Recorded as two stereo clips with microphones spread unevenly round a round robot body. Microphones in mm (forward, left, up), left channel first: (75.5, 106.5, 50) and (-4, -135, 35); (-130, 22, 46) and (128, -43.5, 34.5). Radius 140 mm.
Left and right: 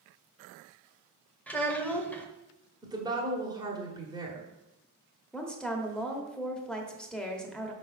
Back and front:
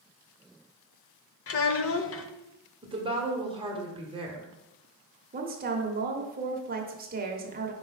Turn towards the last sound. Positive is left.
turn(degrees=-20)